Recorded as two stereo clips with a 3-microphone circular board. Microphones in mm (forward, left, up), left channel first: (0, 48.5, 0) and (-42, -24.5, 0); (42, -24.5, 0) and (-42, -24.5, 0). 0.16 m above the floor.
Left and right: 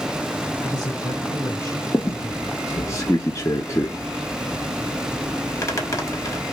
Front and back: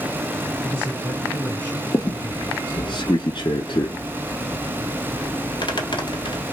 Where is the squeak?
10° left, 0.9 m.